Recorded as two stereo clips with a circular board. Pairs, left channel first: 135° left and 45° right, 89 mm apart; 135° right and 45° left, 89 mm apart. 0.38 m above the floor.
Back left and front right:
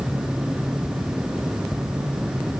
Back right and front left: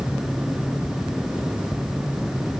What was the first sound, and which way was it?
Only background noise.